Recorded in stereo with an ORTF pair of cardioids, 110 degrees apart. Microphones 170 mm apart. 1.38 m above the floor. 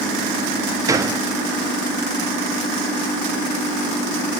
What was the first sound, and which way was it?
A gunshot, 20° right.